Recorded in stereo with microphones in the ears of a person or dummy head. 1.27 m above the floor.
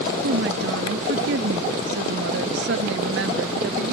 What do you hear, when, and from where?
0.2 s a woman speaking: 70° right (ahead or behind)